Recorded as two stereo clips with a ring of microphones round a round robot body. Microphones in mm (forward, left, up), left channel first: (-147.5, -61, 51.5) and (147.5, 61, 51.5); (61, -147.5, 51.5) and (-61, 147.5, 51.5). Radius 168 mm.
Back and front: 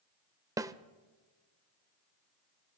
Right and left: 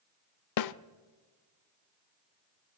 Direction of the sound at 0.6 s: 55° right.